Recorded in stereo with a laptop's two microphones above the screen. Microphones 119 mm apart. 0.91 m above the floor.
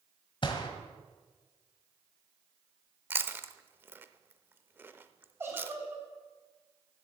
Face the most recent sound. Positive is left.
turn(degrees=-20)  # may be behind; listen again after turning